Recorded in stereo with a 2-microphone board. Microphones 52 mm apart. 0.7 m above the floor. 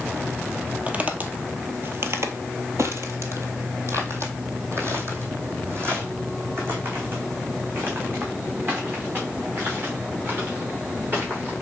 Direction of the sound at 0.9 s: 25° right (ahead or behind).